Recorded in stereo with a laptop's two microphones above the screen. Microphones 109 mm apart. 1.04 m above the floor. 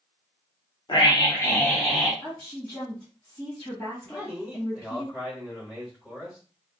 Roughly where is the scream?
Left.